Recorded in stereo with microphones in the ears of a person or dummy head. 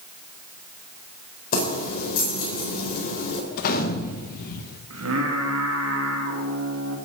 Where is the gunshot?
50° left (ahead or behind), 1.3 m.